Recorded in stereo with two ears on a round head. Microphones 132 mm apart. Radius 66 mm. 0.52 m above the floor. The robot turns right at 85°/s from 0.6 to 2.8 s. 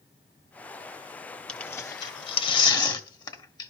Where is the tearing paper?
5° left (ahead or behind), 1.2 m; by 3.7 s 30° left (ahead or behind), 1.2 m.